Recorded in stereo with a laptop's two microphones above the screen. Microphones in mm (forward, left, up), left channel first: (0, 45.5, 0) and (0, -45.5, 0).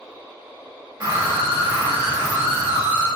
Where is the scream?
45° right (ahead or behind), 1.7 m.